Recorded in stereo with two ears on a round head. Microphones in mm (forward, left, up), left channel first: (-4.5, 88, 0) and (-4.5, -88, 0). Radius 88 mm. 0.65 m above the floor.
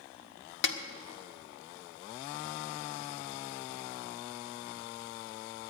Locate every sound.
0.6 s a snare drum: 65° left (ahead or behind), 1.1 m